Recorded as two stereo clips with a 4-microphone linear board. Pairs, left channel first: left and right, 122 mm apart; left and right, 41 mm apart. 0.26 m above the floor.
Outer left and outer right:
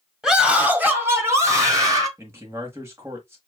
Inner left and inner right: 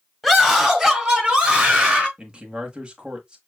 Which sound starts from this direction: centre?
A scream, at 0.2 s.